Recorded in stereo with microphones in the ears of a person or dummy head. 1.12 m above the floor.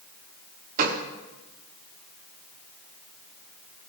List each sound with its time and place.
0.8 s a gunshot: 50° right (ahead or behind), 1.4 m